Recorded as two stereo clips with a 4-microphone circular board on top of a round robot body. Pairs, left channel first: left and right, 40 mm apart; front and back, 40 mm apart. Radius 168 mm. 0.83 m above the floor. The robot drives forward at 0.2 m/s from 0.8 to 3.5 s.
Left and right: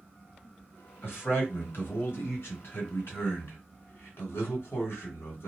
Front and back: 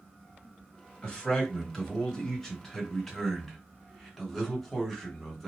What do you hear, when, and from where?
1.0 s a man speaking: 70° left, 1.8 m; by 5.5 s 85° left, 1.7 m